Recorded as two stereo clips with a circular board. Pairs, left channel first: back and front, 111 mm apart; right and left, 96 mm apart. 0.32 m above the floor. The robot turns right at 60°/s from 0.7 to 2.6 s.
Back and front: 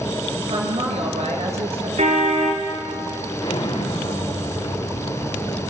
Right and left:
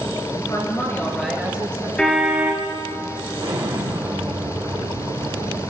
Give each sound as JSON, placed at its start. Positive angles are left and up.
{"t": 0.3, "sound": "a woman speaking", "azimuth_deg": -35, "distance_m": 5.0}
{"t": 2.0, "sound": "a car horn", "azimuth_deg": -10, "distance_m": 3.0}
{"t": 3.4, "sound": "an explosion", "azimuth_deg": 135, "distance_m": 5.0}